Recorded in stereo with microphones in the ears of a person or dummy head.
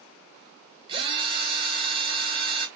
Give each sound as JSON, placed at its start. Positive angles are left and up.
{"t": 0.9, "sound": "a drill", "side_deg": -30, "distance_m": 1.2}